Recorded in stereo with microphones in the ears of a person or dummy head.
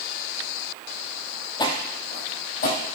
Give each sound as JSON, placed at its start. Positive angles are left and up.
{"t": 1.6, "sound": "footsteps", "side_deg": 20, "distance_m": 1.7}